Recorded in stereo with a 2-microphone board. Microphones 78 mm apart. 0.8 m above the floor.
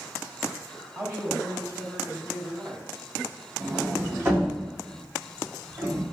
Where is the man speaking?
35° right (ahead or behind), 2 m.